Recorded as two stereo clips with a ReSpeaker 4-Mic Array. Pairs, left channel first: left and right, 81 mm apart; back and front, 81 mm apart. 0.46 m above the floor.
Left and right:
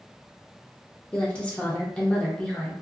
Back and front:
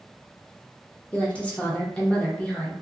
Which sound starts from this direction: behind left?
A woman speaking, at 1.1 s.